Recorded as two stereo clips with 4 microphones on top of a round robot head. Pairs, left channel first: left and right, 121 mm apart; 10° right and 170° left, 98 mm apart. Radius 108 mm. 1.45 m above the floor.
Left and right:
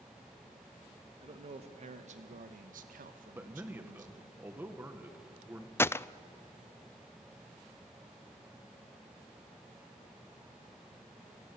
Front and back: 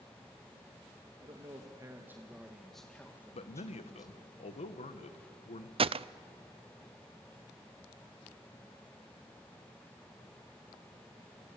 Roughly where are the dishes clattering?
I don't hear dishes clattering.